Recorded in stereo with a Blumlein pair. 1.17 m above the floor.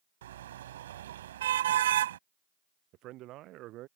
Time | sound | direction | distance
0.2 | a car horn | 60° right | ?
2.9 | a man speaking | 35° right | ?